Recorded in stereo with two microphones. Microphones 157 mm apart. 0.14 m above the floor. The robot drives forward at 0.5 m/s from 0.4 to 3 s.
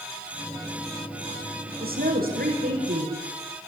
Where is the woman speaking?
75° right (ahead or behind), 8 m; by 3.2 s 70° right (ahead or behind), 8 m.